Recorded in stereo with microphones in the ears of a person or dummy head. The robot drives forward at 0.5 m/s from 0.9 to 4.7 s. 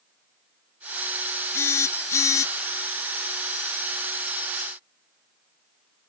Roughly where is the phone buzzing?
Centre.